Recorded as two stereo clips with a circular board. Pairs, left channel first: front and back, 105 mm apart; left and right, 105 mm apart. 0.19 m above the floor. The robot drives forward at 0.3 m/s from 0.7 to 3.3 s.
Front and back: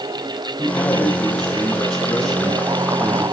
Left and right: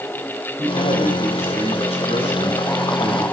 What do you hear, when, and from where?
0.6 s a man speaking: 80° left, 7.5 m; by 3.2 s 85° left, 7.5 m